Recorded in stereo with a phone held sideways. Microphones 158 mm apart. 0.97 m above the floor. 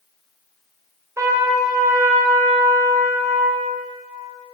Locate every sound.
1.2 s a trumpet: 20° right (ahead or behind), 0.6 m